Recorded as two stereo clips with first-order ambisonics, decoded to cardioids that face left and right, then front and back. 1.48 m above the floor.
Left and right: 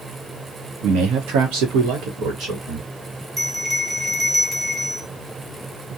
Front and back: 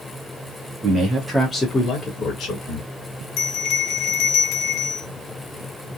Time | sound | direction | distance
0.8 | a man speaking | 120° right | 1.0 m
3.4 | a bell | 15° right | 0.6 m